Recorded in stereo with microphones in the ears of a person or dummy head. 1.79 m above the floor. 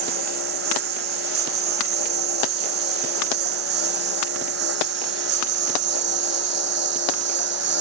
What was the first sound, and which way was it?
A lawn mower, 65° right (ahead or behind).